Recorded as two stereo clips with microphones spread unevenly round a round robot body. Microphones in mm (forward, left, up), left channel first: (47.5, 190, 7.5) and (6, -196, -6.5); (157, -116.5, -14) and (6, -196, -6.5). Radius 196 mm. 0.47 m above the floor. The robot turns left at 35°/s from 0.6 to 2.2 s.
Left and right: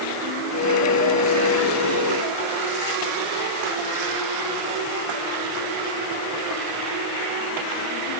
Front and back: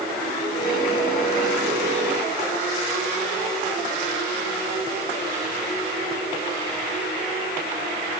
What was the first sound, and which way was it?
Only background noise.